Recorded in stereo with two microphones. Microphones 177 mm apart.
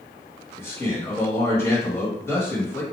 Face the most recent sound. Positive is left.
turn(degrees=15)  # may be behind; listen again after turning